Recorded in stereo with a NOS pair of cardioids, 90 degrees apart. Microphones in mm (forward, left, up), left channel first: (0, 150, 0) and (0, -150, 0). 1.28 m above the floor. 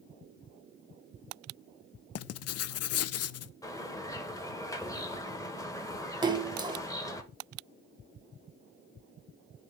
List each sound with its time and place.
2.1 s writing: 55° left, 0.5 m
3.6 s a bird: 10° left, 1.3 m
6.2 s a splash: 15° right, 1.1 m